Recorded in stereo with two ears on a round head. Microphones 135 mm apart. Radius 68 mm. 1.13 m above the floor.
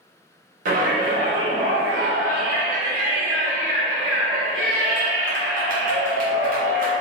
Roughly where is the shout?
Right.